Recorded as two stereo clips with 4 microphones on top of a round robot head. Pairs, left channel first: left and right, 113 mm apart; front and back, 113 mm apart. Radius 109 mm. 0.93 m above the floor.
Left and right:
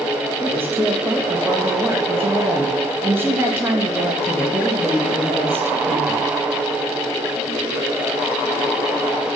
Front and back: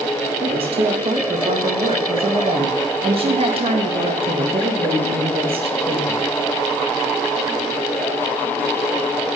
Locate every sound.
0.4 s a woman speaking: 160° right, 1.6 m